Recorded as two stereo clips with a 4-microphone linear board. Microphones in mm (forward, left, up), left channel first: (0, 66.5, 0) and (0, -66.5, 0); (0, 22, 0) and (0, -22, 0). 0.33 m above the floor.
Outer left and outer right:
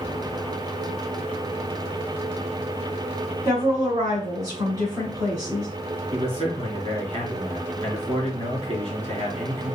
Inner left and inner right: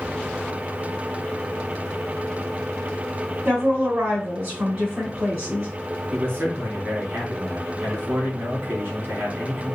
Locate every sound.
3.5 s a woman speaking: 25° right (ahead or behind), 2.5 m
6.1 s a man speaking: 45° right (ahead or behind), 3 m